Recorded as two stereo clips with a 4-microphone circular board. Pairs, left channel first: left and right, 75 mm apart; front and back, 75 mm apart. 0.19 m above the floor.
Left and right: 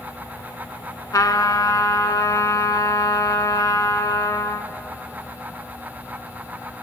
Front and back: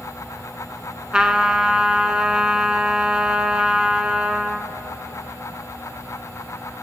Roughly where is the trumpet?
Left.